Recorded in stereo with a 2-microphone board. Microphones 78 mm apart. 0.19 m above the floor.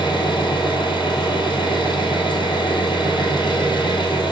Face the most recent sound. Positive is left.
turn(degrees=70)  # may be behind; listen again after turning